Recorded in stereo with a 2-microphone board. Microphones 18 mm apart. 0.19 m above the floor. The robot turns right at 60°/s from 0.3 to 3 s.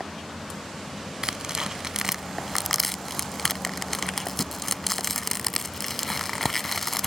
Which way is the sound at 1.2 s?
40° right (ahead or behind).